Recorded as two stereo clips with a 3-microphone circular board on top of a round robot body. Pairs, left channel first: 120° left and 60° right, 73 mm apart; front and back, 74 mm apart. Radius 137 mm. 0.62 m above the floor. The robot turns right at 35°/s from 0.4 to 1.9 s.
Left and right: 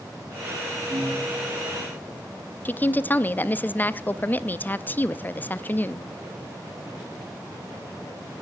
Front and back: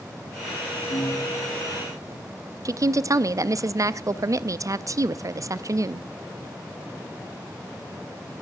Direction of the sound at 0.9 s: 10° right.